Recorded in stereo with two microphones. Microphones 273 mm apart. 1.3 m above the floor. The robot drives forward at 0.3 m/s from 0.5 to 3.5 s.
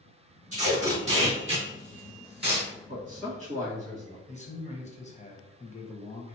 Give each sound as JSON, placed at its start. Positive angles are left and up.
{"t": 0.5, "sound": "tape being pulled", "side_deg": -30, "distance_m": 1.8}
{"t": 2.9, "sound": "a man speaking", "side_deg": -25, "distance_m": 1.7}
{"t": 4.3, "sound": "a man speaking", "side_deg": 25, "distance_m": 0.7}